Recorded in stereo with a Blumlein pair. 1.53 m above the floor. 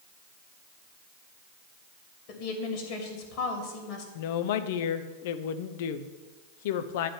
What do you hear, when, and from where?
2.3 s a woman speaking: 40° left, 2.5 m
4.2 s a woman speaking: 50° left, 0.7 m